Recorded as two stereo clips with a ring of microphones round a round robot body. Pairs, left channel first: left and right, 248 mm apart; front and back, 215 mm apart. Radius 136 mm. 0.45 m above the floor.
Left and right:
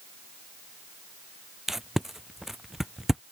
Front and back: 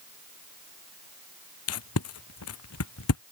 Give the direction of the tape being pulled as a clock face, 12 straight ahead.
12 o'clock.